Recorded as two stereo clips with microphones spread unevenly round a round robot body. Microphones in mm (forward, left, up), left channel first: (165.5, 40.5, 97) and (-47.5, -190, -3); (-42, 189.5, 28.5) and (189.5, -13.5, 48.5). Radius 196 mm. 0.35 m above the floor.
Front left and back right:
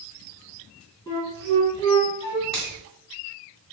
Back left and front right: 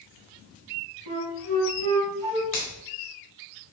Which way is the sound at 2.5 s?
130° left.